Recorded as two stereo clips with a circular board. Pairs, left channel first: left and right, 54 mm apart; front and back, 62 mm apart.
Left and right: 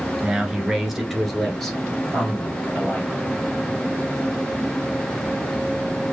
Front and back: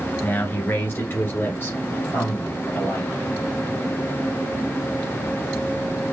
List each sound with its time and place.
0.2 s a man speaking: 25° right, 1.6 m; by 3.1 s 30° left, 2.5 m